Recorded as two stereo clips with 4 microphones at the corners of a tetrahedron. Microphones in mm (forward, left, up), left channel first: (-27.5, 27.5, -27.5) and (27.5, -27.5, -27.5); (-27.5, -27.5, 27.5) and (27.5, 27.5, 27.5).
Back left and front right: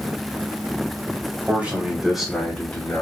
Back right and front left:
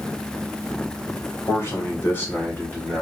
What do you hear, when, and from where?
1.5 s a man speaking: 100° right, 1.8 m; by 3.0 s 160° left, 1.6 m